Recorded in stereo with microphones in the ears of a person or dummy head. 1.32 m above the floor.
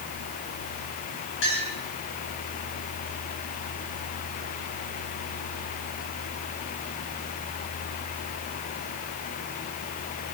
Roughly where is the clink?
Left.